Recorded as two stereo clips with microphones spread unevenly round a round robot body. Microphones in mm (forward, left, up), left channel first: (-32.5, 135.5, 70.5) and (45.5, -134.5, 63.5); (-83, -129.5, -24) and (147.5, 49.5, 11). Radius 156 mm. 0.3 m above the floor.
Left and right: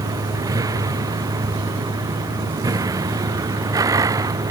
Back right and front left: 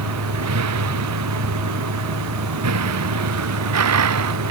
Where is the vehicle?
5° left.